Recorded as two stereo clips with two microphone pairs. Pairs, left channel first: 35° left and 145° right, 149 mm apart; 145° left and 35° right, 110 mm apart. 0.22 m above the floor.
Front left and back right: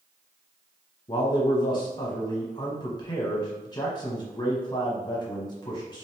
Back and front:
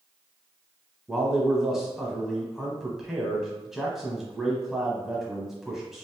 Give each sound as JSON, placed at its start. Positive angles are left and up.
{"t": 1.1, "sound": "a man speaking", "azimuth_deg": 45, "distance_m": 1.0}